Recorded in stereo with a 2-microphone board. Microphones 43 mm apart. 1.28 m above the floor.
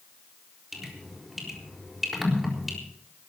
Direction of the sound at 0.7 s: 5° right (ahead or behind).